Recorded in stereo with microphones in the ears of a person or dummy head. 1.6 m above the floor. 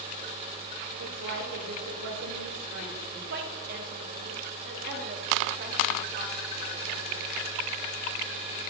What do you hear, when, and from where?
1.0 s a woman speaking: 80° right, 2.5 m
3.3 s a woman speaking: 55° right (ahead or behind), 2.0 m